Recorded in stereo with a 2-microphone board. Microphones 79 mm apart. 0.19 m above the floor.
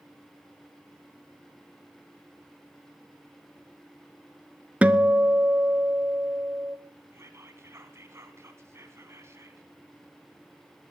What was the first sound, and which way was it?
A guitar, 15° right (ahead or behind).